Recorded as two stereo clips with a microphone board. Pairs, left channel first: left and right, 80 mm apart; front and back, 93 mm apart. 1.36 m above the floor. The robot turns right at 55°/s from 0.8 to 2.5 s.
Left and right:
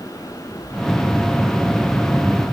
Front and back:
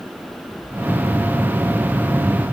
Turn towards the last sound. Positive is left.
No sound to turn to.